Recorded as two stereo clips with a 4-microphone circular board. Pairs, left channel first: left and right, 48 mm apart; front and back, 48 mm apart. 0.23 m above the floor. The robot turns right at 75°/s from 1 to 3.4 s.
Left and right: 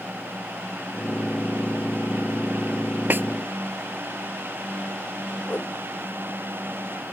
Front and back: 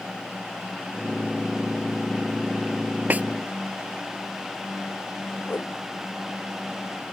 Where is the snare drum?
130° right; by 3.3 s 120° right.